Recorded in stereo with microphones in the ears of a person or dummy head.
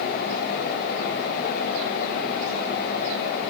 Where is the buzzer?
I don't hear a buzzer.